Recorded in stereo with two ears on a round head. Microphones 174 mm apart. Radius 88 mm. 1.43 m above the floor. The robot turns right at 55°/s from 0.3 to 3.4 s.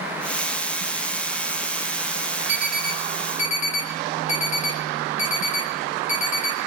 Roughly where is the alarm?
Centre.